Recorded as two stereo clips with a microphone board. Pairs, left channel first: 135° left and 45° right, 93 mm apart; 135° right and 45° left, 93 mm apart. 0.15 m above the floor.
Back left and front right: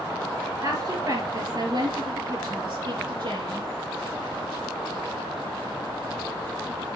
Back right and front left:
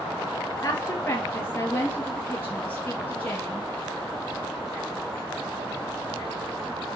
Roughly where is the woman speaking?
Right.